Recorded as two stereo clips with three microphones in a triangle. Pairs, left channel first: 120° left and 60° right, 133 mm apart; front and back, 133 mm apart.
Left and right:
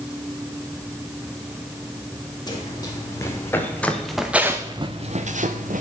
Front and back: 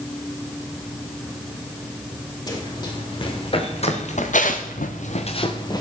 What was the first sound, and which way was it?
Running footsteps, 60° left.